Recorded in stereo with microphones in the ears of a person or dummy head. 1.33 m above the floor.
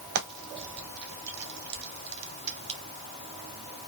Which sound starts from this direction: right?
Frying, at 0.1 s.